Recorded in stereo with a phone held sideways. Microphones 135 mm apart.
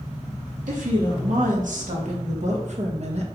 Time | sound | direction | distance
0.7 | a woman speaking | 85° right | 2.5 m